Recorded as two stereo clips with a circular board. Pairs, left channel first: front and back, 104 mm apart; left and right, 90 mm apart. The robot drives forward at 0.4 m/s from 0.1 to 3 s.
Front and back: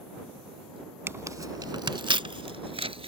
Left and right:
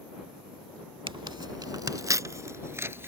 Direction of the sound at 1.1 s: 115° right.